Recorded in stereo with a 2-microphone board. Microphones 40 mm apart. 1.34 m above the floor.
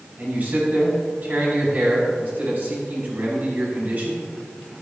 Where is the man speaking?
45° right (ahead or behind), 4.5 m.